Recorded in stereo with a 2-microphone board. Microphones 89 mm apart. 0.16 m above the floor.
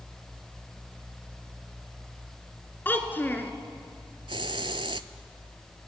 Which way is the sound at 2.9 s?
25° left (ahead or behind).